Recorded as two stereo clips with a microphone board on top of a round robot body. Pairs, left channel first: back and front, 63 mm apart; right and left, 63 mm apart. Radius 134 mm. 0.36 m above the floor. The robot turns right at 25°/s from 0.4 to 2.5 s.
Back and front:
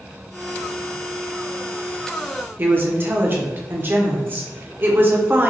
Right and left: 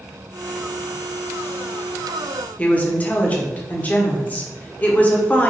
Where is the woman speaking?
35° right, 1.5 m.